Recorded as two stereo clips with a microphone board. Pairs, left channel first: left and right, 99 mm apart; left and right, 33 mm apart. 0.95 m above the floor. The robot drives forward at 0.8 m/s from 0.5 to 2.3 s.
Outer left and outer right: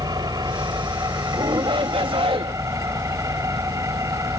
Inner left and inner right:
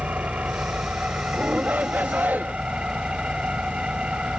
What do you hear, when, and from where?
0.0 s an engine running: 45° right (ahead or behind); by 4.4 s 35° right (ahead or behind)
1.3 s a shout: 55° right (ahead or behind); by 2.5 s 65° right (ahead or behind)